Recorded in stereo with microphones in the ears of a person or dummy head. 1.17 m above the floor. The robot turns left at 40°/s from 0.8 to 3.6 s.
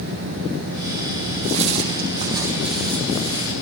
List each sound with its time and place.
1.4 s footsteps: 65° right (ahead or behind), 2.5 m; by 3.5 s 40° left (ahead or behind), 4 m